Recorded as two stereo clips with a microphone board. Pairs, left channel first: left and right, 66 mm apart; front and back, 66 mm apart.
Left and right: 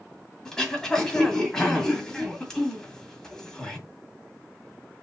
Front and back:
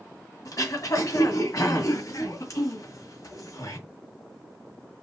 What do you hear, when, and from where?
0.5 s throat clearing: 10° left, 1.9 m